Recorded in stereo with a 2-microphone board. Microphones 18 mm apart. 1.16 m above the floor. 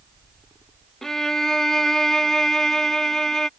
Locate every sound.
1.0 s a violin: 25° left (ahead or behind)